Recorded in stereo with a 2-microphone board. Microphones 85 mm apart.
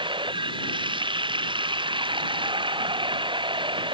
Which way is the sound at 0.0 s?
90° right.